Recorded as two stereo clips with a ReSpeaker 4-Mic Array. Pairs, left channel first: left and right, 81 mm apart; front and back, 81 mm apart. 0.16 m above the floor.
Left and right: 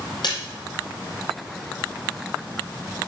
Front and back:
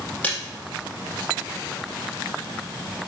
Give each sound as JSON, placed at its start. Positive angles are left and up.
{"t": 0.2, "sound": "a splash", "azimuth_deg": 70, "distance_m": 4.5}